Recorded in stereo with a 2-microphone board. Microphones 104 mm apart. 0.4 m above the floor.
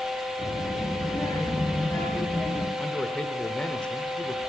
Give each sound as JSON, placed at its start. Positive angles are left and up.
{"t": 0.4, "sound": "a child speaking", "side_deg": 40, "distance_m": 4.0}
{"t": 2.8, "sound": "a man speaking", "side_deg": 10, "distance_m": 1.2}